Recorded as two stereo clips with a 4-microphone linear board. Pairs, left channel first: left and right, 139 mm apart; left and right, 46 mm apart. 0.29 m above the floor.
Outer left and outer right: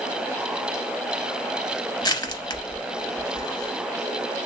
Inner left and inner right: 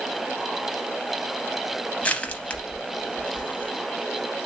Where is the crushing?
30° left (ahead or behind), 0.6 m.